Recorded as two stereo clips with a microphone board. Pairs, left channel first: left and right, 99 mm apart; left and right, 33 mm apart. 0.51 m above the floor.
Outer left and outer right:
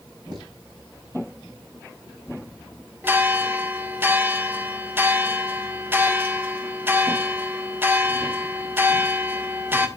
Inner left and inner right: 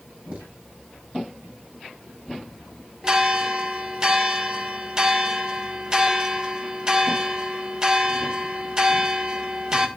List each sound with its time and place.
0.3 s footsteps: 45° right (ahead or behind), 5.5 m
3.0 s a bell: 20° right (ahead or behind), 1.4 m